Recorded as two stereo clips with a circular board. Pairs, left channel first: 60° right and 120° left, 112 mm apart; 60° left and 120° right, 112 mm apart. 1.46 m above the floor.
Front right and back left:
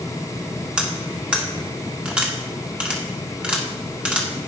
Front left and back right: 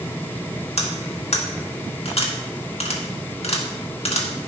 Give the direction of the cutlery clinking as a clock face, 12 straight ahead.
11 o'clock.